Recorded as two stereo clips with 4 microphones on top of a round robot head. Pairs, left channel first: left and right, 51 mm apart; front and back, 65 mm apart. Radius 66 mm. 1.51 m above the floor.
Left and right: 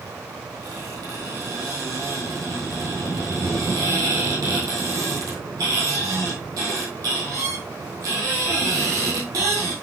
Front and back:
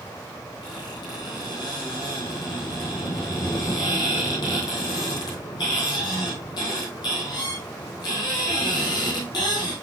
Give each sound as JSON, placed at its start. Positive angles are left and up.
{"t": 0.6, "sound": "a squeak", "azimuth_deg": -45, "distance_m": 2.5}